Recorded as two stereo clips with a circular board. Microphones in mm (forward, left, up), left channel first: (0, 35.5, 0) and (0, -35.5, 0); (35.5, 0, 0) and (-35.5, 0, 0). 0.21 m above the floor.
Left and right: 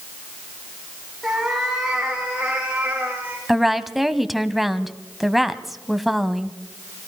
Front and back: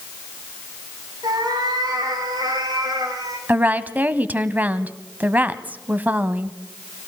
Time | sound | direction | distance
1.2 | a cat meowing | 175° right | 6.5 m
3.5 | a woman speaking | 175° right | 1.0 m